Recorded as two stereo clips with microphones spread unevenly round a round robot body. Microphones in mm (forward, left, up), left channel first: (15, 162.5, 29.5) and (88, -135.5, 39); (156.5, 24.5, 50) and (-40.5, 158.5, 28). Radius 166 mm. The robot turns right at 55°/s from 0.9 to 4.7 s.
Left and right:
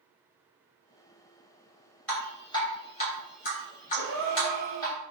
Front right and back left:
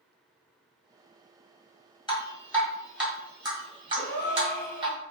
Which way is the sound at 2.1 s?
25° left.